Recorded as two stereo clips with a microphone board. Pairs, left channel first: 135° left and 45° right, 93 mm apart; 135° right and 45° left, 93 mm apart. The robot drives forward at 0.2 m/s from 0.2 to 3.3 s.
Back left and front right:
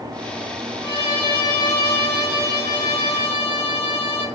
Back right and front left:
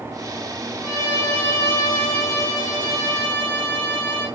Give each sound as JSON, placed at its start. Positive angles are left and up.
{"t": 0.8, "sound": "a violin", "azimuth_deg": 175, "distance_m": 1.5}